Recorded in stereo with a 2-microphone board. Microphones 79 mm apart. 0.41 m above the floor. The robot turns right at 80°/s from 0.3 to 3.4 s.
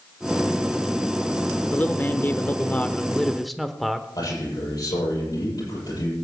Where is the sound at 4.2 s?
55° left (ahead or behind), 9 m.